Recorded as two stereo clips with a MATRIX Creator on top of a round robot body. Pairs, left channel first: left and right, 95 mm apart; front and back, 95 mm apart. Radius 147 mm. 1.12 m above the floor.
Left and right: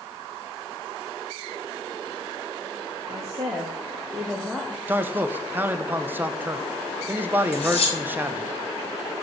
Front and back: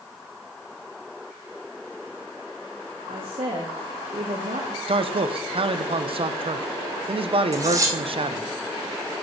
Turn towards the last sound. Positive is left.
turn(degrees=120)